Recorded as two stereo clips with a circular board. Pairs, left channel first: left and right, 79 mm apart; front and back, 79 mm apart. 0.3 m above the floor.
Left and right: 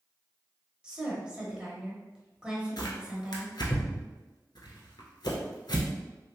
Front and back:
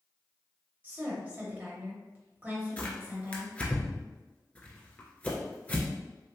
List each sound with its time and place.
0.8 s a woman speaking: 155° right, 1.0 m
2.8 s tearing paper: 70° left, 0.8 m